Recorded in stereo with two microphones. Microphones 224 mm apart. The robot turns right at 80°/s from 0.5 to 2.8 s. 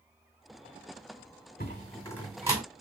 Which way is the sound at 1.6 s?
40° left (ahead or behind).